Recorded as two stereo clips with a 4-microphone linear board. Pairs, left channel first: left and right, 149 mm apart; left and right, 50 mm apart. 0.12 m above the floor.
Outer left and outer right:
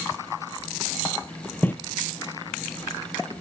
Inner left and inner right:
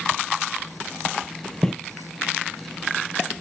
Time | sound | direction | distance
1.6 | footsteps | 10° left (ahead or behind) | 0.7 m